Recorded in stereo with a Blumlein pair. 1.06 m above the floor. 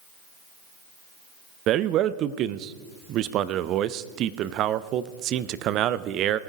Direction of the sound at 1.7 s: 35° right.